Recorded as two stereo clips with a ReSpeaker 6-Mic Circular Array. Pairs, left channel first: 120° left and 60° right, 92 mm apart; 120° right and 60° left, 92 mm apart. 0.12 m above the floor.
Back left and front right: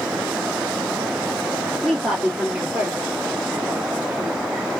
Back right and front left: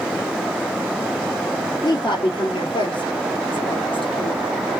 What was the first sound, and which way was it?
A woman speaking, 140° right.